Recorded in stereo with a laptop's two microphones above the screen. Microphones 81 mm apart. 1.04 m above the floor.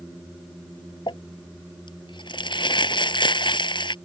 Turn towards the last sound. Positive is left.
turn(degrees=75)  # may be behind; listen again after turning